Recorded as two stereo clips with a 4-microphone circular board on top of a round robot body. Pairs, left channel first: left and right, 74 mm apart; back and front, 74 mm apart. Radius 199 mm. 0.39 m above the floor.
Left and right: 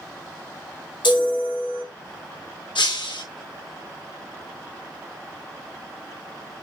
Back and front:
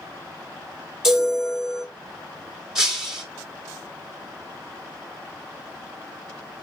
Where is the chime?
80° left, 4.5 m.